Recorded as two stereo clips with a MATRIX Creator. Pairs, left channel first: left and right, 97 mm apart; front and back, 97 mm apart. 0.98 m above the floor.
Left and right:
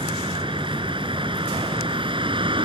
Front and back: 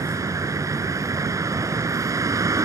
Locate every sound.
0.0 s a vehicle: 120° right